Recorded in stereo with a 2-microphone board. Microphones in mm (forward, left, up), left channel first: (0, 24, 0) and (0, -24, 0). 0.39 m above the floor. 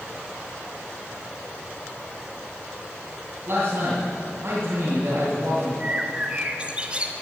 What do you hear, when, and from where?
3.5 s a man speaking: 55° right (ahead or behind), 3 m
5.8 s a bird: 25° right (ahead or behind), 1.1 m